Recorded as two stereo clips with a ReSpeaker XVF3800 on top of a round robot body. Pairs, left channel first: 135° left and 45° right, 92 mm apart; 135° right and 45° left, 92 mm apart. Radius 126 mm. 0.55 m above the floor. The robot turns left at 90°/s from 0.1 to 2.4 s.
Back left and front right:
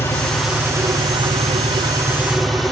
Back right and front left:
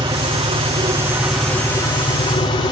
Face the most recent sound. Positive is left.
turn(degrees=-135)